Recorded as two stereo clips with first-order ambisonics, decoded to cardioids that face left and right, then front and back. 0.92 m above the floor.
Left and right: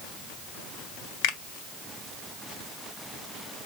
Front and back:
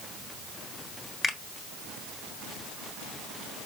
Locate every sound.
1.2 s a finger snap: 80° left, 1.2 m